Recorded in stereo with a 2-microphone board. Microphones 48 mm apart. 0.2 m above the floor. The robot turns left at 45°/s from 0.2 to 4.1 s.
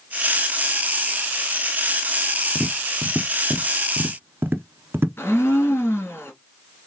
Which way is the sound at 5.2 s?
50° left (ahead or behind).